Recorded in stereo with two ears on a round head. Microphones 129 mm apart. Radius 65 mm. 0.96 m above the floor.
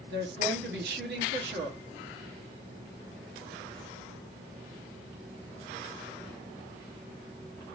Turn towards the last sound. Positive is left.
turn(degrees=-80)